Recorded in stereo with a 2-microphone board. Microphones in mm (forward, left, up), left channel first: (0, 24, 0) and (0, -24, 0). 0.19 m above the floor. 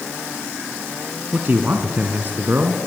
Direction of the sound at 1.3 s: 45° right (ahead or behind).